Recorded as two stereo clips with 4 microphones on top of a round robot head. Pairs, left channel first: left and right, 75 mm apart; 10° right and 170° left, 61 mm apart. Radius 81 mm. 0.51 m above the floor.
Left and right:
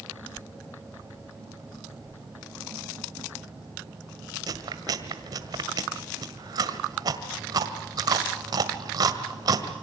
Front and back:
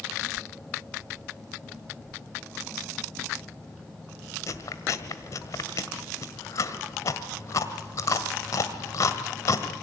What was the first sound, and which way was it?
Chewing, 50° right.